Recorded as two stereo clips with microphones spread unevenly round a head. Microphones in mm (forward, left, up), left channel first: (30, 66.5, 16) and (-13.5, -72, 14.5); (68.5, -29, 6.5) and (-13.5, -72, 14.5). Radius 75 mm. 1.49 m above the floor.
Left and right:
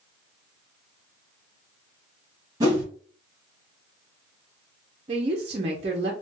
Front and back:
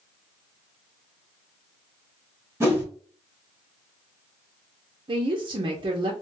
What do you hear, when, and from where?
2.6 s a whoosh: 145° right, 1.3 m
5.1 s a woman speaking: 155° right, 0.6 m